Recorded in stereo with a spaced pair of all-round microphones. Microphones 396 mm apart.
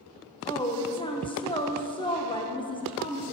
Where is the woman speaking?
10° left (ahead or behind), 1.0 m.